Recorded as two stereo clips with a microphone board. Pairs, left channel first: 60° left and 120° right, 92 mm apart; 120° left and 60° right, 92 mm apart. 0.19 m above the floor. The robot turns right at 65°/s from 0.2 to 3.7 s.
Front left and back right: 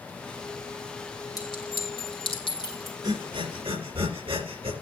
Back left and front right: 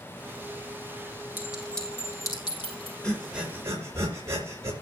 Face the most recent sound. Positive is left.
turn(degrees=-120)